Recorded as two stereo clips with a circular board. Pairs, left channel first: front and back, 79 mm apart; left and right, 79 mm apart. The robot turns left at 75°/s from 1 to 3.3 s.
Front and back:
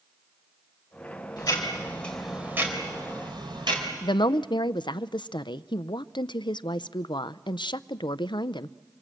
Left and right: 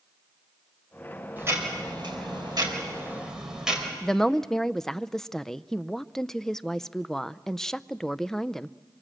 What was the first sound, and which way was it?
Ticking, 25° right.